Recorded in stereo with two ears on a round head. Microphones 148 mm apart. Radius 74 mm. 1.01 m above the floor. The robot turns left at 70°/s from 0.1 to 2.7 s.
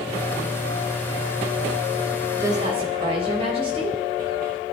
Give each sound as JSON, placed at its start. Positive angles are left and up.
{"t": 2.3, "sound": "a woman speaking", "side_deg": -10, "distance_m": 6.0}